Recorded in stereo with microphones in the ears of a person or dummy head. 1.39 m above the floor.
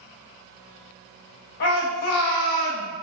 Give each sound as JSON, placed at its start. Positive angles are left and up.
{"t": 1.6, "sound": "a shout", "side_deg": 55, "distance_m": 0.6}